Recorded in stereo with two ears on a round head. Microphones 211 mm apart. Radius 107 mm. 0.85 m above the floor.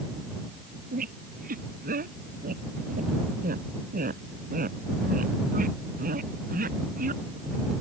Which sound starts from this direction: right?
A squeak, at 0.9 s.